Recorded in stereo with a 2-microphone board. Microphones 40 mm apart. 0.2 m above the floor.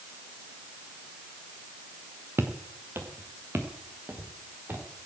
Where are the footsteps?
65° right (ahead or behind), 1.6 m; by 4.8 s 60° right (ahead or behind), 3.5 m.